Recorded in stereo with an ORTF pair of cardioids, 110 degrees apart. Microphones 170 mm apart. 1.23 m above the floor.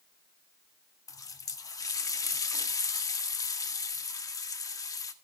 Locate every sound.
1.1 s a running tap: 20° left, 1.6 m